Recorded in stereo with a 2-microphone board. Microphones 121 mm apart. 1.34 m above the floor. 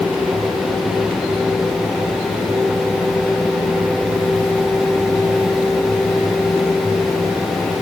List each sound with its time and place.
Only background noise.